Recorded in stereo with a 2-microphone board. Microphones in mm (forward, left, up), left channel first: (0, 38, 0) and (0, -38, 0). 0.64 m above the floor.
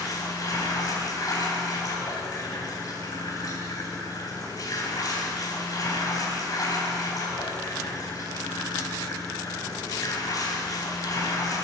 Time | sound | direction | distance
0.0 | running water | 55° left (ahead or behind) | 3 m